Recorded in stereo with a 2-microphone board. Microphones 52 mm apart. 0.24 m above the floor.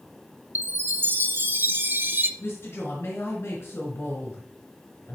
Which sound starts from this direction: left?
A woman speaking, at 2.4 s.